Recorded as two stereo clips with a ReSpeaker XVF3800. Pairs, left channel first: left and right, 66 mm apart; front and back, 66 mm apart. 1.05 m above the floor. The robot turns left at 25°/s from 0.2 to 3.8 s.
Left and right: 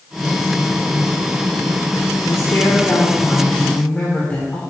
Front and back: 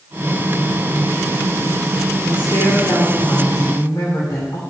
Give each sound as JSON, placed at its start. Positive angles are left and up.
{"t": 2.3, "sound": "a woman speaking", "azimuth_deg": 55, "distance_m": 2.5}